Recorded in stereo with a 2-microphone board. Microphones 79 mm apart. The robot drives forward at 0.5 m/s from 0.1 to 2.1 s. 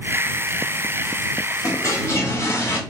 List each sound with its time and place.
1.6 s a toilet flushing: 45° left (ahead or behind), 0.9 m; by 2.8 s 40° left (ahead or behind), 1.0 m